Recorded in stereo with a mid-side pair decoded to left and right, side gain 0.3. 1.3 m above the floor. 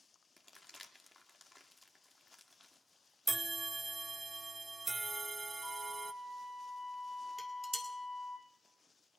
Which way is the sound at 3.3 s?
30° right.